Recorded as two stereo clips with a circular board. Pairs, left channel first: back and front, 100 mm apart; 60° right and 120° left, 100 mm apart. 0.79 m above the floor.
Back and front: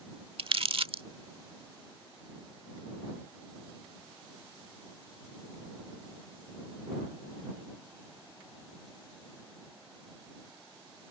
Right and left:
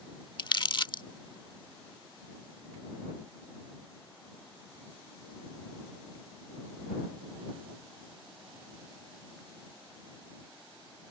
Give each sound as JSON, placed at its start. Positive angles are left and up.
{"t": 0.4, "sound": "crumpling", "azimuth_deg": -25}